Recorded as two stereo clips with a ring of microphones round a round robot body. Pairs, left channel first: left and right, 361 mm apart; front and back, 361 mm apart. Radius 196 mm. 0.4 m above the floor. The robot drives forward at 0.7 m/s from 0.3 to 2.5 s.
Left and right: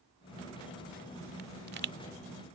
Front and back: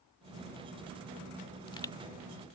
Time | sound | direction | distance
1.4 | a pop | 50° right | ?